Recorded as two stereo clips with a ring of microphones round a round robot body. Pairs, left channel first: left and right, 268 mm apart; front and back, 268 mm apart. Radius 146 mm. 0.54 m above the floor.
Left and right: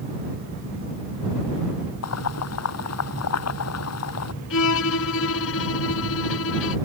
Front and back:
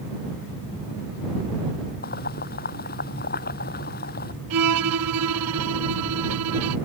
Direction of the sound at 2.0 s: 60° left.